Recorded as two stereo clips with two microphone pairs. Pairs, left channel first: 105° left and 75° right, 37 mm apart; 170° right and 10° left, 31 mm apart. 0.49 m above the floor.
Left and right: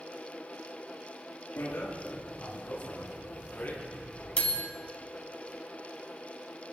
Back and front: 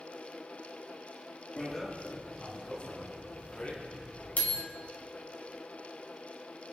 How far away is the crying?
No crying in this recording.